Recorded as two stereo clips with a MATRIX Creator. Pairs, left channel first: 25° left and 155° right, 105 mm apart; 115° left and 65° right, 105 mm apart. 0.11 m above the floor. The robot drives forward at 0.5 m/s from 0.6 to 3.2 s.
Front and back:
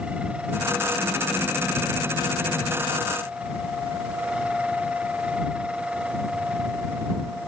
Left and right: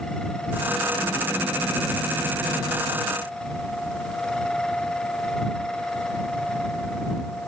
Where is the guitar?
No guitar in this recording.